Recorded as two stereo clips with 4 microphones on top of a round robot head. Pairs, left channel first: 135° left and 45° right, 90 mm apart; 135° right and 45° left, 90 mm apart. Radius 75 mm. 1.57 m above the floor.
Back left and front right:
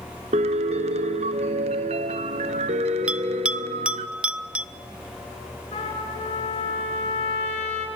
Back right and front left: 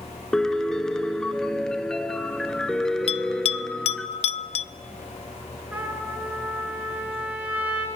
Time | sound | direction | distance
0.3 | a piano | 50° right | 1.2 m
3.1 | a bell | 125° right | 0.6 m
5.7 | a trumpet | 120° left | 10 m